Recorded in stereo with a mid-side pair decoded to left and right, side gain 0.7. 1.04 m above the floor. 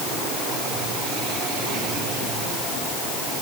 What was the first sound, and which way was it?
Only background noise.